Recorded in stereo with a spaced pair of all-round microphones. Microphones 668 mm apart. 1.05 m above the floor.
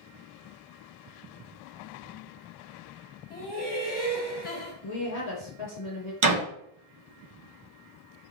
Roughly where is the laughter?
Centre.